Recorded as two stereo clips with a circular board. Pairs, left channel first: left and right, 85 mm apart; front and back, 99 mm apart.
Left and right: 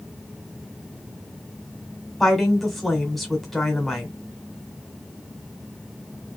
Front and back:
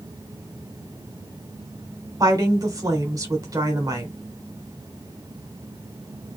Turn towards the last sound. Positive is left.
turn(degrees=180)